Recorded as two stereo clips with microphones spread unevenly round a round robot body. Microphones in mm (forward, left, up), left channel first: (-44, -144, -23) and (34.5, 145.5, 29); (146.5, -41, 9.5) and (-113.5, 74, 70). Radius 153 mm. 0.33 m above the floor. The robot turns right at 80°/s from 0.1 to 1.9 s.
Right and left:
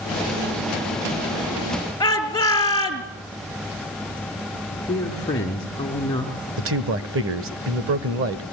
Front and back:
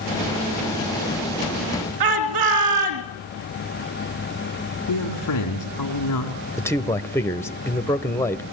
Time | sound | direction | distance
2.0 | a shout | 175° left | 4.5 m
4.9 | a man speaking | 30° right | 3.5 m
6.6 | a man speaking | 35° left | 1.4 m